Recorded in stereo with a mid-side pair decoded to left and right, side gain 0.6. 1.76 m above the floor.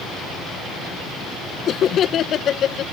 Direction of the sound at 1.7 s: 45° left.